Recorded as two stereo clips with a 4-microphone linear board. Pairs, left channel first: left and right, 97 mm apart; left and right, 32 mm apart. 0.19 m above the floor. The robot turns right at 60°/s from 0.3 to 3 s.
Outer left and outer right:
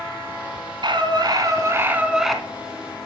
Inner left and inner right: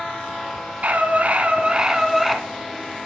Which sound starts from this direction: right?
A scream, at 0.8 s.